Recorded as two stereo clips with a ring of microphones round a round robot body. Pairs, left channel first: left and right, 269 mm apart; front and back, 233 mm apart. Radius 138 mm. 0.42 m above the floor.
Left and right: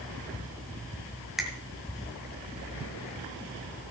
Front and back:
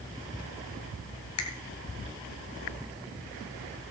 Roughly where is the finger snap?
Ahead.